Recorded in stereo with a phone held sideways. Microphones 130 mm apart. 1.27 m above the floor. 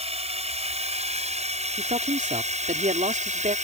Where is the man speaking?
70° right (ahead or behind).